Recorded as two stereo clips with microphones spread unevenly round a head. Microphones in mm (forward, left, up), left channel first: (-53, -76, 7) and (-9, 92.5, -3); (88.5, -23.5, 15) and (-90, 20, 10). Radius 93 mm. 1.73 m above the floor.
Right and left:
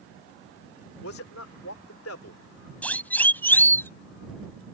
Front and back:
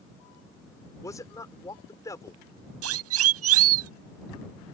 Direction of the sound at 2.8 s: 175° left.